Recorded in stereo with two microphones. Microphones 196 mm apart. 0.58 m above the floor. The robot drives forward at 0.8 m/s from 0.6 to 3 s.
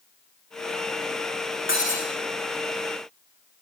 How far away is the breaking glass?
About 6 m.